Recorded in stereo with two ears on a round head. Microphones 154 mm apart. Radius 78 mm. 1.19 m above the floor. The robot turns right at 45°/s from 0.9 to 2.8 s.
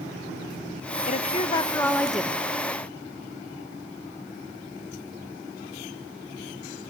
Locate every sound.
1.1 s a woman speaking: 130° left, 1.3 m; by 2.4 s 170° right, 1.3 m